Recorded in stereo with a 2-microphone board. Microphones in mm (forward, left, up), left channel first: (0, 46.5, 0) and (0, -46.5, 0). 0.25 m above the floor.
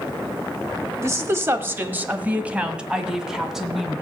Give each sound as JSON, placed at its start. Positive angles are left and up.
{"t": 1.0, "sound": "a woman speaking", "side_deg": -25, "distance_m": 1.2}